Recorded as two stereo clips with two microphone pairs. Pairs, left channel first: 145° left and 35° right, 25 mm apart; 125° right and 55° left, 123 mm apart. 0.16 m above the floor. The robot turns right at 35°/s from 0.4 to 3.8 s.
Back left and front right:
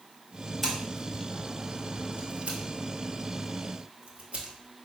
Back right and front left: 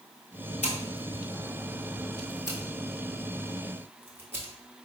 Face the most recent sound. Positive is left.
turn(degrees=-15)